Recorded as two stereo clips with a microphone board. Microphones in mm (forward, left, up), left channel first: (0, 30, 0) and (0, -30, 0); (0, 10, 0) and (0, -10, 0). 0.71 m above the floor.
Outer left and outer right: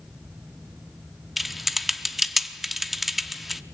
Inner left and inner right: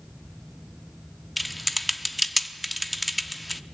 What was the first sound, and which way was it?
Typing on a keyboard, centre (ahead or behind).